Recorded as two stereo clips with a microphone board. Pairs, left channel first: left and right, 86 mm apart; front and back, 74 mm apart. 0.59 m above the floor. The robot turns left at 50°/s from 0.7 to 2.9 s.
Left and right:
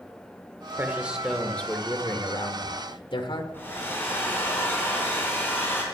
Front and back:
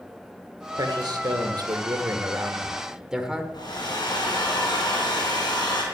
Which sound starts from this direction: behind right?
A man speaking, at 0.8 s.